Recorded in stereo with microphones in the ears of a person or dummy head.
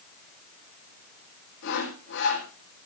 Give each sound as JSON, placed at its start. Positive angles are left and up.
{"t": 1.6, "sound": "sawing", "side_deg": 60, "distance_m": 5.0}